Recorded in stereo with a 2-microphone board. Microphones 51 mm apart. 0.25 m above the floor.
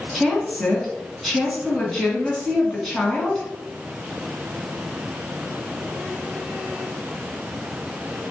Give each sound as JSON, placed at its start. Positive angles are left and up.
{"t": 0.1, "sound": "a woman speaking", "side_deg": 5, "distance_m": 2.5}